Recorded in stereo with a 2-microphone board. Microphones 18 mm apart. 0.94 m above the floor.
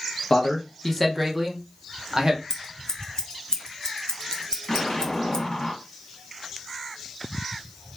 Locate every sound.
0.3 s a man speaking: 30° left (ahead or behind), 0.7 m; by 2.4 s 40° right (ahead or behind), 1.1 m
2.5 s scissors: 40° left (ahead or behind), 0.6 m
4.7 s an explosion: 35° left (ahead or behind), 1.5 m